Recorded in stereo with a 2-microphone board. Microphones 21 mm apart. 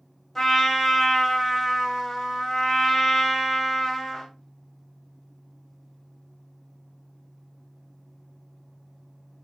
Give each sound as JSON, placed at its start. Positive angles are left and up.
{"t": 0.3, "sound": "a trumpet", "side_deg": 20, "distance_m": 0.8}